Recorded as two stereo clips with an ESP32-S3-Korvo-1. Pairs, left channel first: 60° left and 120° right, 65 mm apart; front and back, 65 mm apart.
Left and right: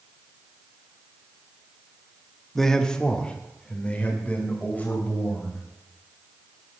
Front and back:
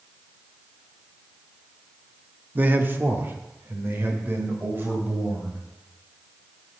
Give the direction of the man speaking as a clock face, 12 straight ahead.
7 o'clock.